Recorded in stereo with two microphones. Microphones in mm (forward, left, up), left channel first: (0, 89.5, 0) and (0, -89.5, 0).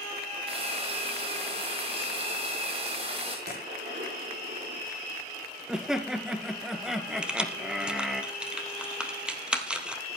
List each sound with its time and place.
0.5 s frying: 35° right (ahead or behind), 6 m
3.5 s a gunshot: 75° right (ahead or behind), 10 m
5.7 s laughter: 5° right (ahead or behind), 2 m
7.2 s keys jangling: 5° right (ahead or behind), 1.9 m